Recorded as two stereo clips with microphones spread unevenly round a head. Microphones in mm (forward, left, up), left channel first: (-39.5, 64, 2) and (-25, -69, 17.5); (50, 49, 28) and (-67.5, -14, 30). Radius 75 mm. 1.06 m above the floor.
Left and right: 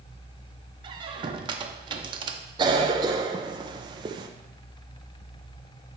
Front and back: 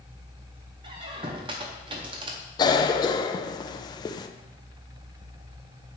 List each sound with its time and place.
0.8 s a squeak: 110° right, 0.6 m
2.6 s a cough: 25° right, 0.5 m